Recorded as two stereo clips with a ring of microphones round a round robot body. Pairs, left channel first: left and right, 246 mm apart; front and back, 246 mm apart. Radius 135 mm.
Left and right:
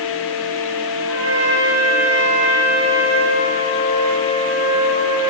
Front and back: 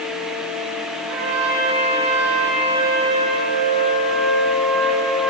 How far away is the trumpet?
About 6.5 m.